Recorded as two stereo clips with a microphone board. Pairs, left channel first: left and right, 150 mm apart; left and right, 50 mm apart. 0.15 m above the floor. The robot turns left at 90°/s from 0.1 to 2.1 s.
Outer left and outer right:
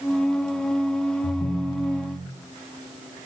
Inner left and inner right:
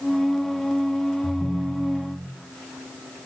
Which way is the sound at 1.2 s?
50° left.